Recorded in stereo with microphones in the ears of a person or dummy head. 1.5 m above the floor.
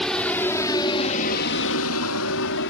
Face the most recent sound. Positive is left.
turn(degrees=65)  # may be behind; listen again after turning